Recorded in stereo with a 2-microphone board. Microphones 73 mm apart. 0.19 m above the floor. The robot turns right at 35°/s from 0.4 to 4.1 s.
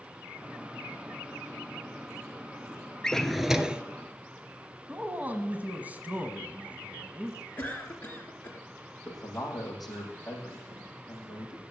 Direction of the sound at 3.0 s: 10° left (ahead or behind).